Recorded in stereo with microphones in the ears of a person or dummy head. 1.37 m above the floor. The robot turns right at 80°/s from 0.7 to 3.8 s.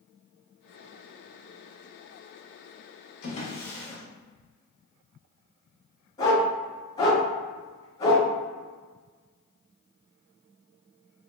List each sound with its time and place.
3.2 s a drawer: 45° left (ahead or behind), 1.5 m; by 4.0 s centre (ahead or behind), 1.5 m
6.2 s a dog barking: 20° left (ahead or behind), 1.7 m